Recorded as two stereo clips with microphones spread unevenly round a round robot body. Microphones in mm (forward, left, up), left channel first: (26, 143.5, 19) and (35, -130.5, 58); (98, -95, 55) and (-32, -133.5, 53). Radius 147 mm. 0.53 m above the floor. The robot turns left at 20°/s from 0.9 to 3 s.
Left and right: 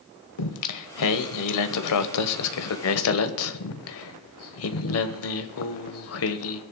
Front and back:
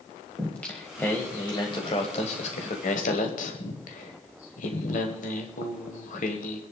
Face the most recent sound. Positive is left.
turn(degrees=60)